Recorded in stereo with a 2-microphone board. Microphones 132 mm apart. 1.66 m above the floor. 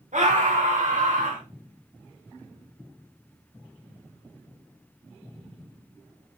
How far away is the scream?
About 4 m.